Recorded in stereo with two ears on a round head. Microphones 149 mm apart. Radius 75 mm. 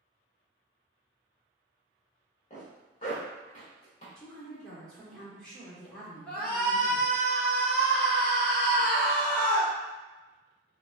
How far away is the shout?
About 1.4 m.